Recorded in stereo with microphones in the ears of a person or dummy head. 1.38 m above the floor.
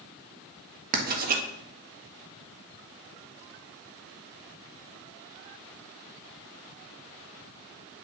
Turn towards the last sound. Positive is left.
turn(degrees=-55)  # may be behind; listen again after turning